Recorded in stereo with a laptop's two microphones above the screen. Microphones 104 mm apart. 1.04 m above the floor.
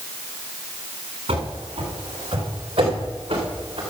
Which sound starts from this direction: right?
Running footsteps, at 1.3 s.